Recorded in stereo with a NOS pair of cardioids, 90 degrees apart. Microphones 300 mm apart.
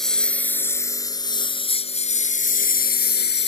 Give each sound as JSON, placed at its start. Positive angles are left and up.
{"t": 0.0, "sound": "a lawn mower", "azimuth_deg": 0}